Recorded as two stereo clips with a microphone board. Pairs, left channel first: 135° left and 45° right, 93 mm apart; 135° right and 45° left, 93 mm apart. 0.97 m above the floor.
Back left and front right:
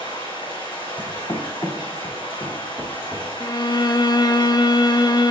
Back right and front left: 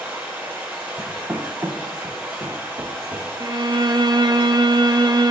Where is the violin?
90° left, 0.5 m.